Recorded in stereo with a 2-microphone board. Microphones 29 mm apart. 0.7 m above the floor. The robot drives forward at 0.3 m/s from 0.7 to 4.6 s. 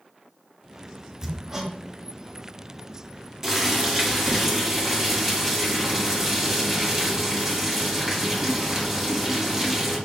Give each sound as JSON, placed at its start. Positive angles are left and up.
{"t": 1.2, "sound": "hammering", "side_deg": -25, "distance_m": 0.8}
{"t": 3.4, "sound": "boiling", "side_deg": -20, "distance_m": 1.3}